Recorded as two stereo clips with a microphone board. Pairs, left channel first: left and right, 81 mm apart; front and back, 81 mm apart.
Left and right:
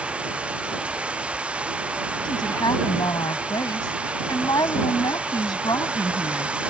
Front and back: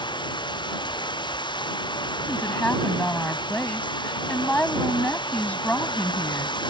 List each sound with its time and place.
0.0 s running water: 15° right
2.2 s a woman speaking: 70° left